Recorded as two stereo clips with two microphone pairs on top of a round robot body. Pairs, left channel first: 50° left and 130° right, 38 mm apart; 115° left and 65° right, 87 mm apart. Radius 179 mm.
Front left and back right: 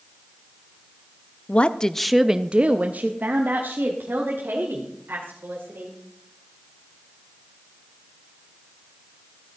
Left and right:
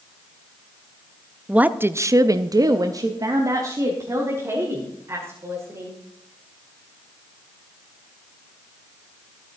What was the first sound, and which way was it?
A woman speaking, 25° left.